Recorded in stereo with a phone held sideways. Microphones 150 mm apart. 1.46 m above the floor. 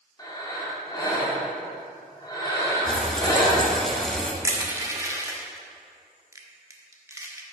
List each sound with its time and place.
0.2 s breathing: 25° left (ahead or behind), 1.9 m
2.9 s frying: 5° left (ahead or behind), 1.0 m
4.4 s crushing: 20° right (ahead or behind), 1.0 m